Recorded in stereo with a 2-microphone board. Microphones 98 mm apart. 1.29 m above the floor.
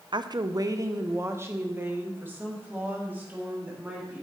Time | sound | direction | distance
0.1 | a woman speaking | 50° right (ahead or behind) | 0.6 m